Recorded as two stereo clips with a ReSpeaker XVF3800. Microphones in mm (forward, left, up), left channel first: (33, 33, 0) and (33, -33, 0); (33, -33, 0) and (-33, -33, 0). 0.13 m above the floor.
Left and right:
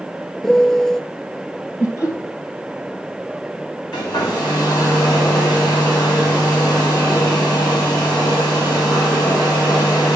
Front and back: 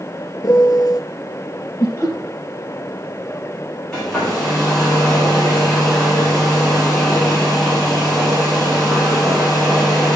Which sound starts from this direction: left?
A hair dryer, at 3.9 s.